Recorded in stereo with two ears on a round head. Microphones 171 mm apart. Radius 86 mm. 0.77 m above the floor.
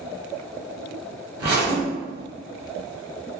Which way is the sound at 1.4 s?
55° right (ahead or behind).